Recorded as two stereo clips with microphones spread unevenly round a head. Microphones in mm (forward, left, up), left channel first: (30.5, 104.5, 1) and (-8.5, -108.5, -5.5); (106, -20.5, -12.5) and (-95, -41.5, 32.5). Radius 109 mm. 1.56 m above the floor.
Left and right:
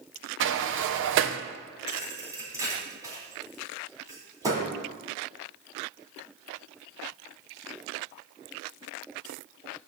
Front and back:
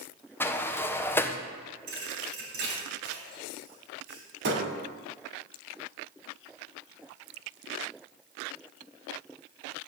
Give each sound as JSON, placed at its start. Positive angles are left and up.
{"t": 0.4, "sound": "a sliding door", "azimuth_deg": -80, "distance_m": 0.7}
{"t": 1.9, "sound": "a thud", "azimuth_deg": -175, "distance_m": 3.0}